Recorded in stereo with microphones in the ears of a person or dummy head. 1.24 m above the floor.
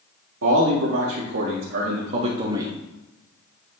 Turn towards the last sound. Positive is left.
turn(degrees=-15)  # may be behind; listen again after turning